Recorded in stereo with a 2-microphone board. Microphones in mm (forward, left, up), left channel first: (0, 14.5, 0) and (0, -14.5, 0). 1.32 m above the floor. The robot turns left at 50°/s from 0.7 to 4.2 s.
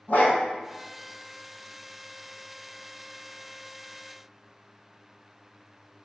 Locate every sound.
0.1 s a dog barking: 60° left (ahead or behind), 2 m